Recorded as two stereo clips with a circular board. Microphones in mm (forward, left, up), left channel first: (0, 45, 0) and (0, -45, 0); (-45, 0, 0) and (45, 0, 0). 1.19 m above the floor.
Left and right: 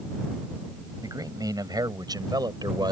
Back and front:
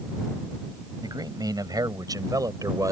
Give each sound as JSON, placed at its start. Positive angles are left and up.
{"t": 1.0, "sound": "a man speaking", "azimuth_deg": -40}